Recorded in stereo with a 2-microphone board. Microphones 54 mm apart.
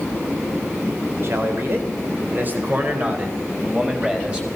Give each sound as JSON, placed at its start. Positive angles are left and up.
{"t": 1.2, "sound": "a man speaking", "side_deg": -55, "distance_m": 4.0}